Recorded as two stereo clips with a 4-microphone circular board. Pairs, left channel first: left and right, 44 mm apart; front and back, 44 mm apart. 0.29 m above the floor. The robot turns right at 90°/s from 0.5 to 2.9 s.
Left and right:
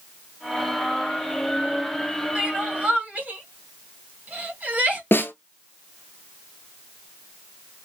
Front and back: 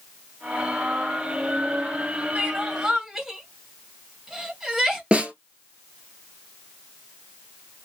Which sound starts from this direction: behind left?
A snare drum, at 5.1 s.